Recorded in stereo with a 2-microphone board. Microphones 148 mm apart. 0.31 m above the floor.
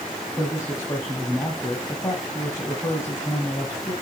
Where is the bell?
I don't hear a bell.